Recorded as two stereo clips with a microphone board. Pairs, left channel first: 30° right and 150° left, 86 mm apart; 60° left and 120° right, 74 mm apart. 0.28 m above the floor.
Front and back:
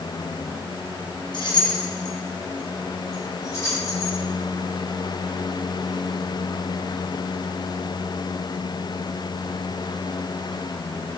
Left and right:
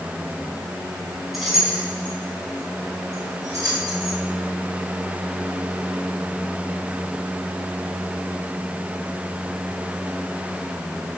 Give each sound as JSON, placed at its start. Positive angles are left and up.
{"t": 1.3, "sound": "keys jangling", "azimuth_deg": -30, "distance_m": 1.9}